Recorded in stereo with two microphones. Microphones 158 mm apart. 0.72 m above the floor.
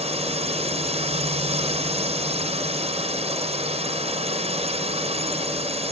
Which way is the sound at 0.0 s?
40° right (ahead or behind).